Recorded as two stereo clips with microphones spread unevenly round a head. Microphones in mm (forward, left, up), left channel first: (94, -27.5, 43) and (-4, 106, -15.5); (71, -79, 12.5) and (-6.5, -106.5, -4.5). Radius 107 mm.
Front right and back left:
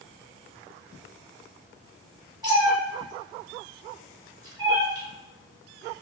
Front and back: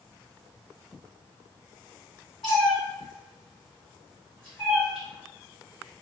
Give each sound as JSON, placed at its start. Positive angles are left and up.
{"t": 2.4, "sound": "a cat meowing", "azimuth_deg": 50, "distance_m": 1.4}